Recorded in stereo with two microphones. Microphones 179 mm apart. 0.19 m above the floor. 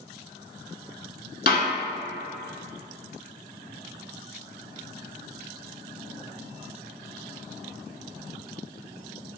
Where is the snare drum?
65° left (ahead or behind), 0.7 m.